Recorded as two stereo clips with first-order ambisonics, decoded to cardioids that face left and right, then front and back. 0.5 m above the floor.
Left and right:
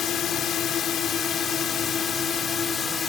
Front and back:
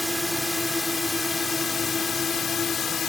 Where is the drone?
80° left; by 3.1 s 40° left.